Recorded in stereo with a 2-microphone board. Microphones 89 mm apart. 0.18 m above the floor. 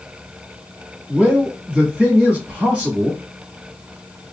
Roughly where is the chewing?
No chewing in this recording.